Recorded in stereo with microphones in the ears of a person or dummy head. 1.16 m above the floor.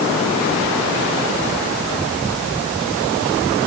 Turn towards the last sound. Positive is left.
No sound to turn to.